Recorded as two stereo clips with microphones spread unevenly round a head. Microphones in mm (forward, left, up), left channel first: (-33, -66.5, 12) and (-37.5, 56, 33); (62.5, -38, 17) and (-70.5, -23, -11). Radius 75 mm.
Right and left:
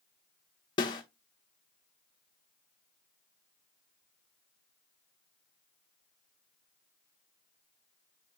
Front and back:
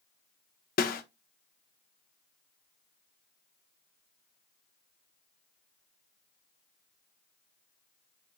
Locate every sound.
0.8 s a snare drum: 30° right, 0.8 m